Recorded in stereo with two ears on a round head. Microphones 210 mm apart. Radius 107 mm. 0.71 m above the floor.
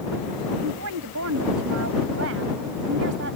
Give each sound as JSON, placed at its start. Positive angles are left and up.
{"t": 0.6, "sound": "a woman speaking", "side_deg": -75}